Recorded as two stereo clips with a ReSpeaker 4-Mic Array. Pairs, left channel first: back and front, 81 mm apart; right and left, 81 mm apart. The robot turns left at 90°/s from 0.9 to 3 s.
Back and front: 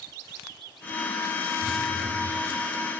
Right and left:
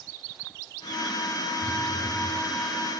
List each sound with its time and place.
1.6 s a phone buzzing: 155° left, 3.5 m; by 2.4 s 85° left, 3.5 m